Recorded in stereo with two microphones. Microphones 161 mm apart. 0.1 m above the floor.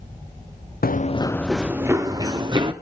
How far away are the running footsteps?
About 0.9 m.